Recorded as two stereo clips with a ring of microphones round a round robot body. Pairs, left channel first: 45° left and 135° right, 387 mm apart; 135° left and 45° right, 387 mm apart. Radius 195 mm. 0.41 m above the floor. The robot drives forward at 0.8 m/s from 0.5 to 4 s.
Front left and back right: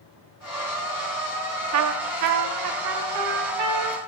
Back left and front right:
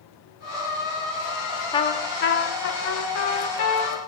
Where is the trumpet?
150° right, 0.6 m; by 4.0 s 175° right, 2 m.